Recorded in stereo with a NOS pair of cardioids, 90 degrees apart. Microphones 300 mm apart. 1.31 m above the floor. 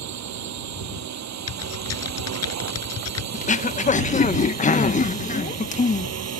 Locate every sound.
0.0 s a drone: 65° right; by 6.4 s 55° right
1.5 s typing on a keyboard: 55° left
3.3 s throat clearing: 25° left